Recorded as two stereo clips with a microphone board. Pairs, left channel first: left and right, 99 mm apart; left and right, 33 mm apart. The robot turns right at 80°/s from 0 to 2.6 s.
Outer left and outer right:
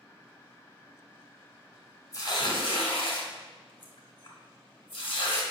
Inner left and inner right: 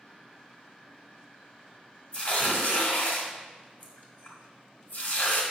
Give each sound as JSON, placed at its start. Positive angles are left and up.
{"t": 2.1, "sound": "tearing paper", "side_deg": 40, "distance_m": 1.4}